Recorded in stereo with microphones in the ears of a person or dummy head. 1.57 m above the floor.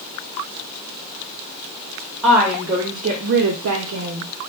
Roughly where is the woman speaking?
Centre.